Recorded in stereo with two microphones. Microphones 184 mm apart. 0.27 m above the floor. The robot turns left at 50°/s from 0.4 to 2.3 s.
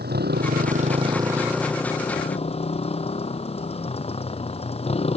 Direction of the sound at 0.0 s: 120° right.